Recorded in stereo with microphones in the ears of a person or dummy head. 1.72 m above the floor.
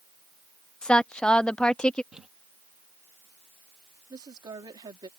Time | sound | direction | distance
0.8 | a woman speaking | 5° left (ahead or behind) | ?
2.1 | crumpling | centre (ahead or behind) | ?
4.1 | a woman speaking | 20° right (ahead or behind) | ?